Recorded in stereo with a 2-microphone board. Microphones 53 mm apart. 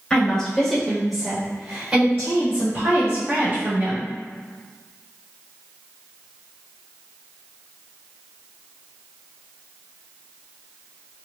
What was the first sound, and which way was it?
A woman speaking, 15° left (ahead or behind).